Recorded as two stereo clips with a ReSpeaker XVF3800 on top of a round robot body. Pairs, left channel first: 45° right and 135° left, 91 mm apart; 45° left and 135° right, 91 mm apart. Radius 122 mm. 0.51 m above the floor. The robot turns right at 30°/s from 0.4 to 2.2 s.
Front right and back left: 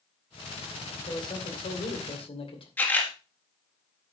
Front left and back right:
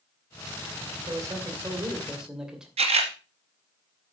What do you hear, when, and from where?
1.1 s a man speaking: 85° right, 2.5 m; by 2.7 s 50° right, 2.5 m
2.8 s a camera shutter: 115° right, 1.6 m